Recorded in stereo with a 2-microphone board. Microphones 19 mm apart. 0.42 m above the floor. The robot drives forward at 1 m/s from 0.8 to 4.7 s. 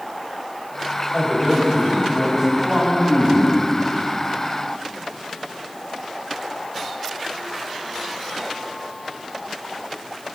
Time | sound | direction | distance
1.1 | a man speaking | 45° right (ahead or behind) | 2.5 m